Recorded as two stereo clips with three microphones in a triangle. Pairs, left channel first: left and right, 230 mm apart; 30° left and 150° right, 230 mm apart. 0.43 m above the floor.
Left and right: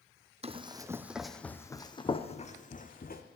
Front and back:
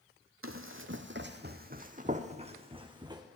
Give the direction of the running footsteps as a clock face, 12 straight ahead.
5 o'clock.